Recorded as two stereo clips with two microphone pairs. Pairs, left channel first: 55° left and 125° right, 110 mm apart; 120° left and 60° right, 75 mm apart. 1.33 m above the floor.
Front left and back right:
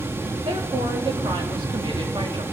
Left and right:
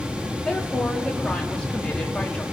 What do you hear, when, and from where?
0.4 s a woman speaking: 165° right, 2 m